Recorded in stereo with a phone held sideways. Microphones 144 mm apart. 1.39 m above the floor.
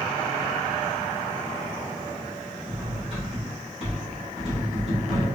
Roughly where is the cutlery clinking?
Right.